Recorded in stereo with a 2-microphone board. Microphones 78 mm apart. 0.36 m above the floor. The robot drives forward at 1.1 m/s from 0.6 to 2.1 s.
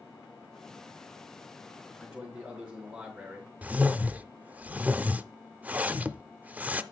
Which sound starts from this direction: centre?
A whoosh, at 3.6 s.